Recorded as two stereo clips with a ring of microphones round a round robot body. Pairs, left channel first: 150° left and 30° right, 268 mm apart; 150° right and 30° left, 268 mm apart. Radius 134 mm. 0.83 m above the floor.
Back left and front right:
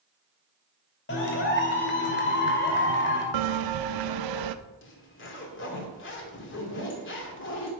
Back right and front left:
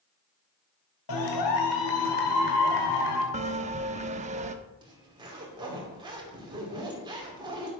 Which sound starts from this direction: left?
A zipper, at 4.8 s.